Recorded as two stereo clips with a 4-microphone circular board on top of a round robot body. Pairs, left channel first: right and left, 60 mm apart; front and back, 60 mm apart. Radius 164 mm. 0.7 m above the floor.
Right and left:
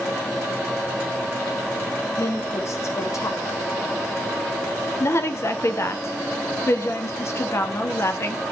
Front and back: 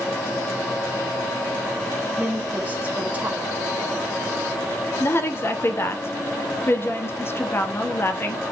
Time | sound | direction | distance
2.2 | a woman speaking | 120° right | 1.6 m
5.0 | a woman speaking | 50° right | 1.3 m